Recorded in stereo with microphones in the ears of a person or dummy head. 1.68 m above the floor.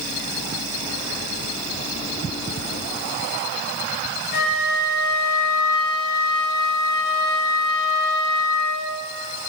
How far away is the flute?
About 6 m.